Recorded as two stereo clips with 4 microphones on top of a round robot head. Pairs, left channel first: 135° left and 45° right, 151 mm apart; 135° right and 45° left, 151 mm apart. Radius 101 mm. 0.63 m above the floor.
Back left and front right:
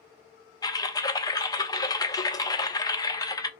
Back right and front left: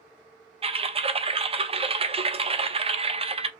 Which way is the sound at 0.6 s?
80° left.